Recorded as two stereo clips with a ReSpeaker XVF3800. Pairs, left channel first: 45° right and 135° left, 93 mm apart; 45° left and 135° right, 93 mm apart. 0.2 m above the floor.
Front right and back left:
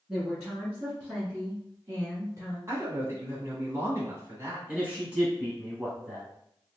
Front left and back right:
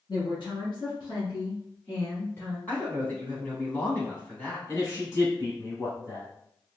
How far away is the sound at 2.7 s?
About 1.4 m.